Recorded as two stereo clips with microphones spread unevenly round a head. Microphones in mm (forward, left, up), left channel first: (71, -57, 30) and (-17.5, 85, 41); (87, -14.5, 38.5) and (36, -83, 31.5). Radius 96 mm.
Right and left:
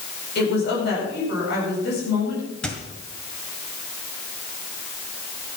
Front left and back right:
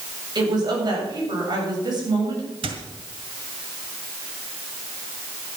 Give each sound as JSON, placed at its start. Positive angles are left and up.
{"t": 0.3, "sound": "a woman speaking", "azimuth_deg": -90, "distance_m": 7.5}
{"t": 2.6, "sound": "a squeak", "azimuth_deg": -145, "distance_m": 1.7}